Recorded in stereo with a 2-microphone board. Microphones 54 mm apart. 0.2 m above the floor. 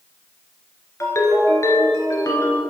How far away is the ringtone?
About 1.5 m.